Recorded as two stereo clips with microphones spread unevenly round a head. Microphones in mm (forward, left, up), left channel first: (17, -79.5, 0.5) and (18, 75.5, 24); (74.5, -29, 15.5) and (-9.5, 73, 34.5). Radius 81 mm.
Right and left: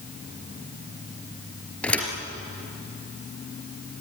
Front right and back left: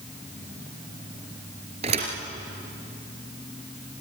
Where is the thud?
175° right, 3.5 m.